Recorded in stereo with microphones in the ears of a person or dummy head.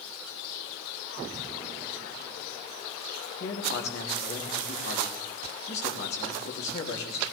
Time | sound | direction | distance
3.4 | a man speaking | 50° left (ahead or behind) | 3 m